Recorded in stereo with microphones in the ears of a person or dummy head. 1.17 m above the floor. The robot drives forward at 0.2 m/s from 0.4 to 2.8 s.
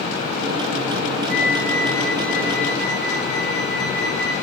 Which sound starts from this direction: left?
A flute, at 1.3 s.